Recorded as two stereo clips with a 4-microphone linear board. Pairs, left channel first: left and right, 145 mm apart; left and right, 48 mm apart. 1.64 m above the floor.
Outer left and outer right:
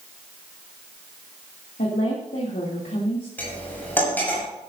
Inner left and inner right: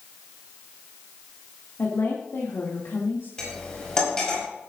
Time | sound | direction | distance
1.8 | a woman speaking | 80° left | 2.5 m
3.4 | cutlery clinking | 15° left (ahead or behind) | 6 m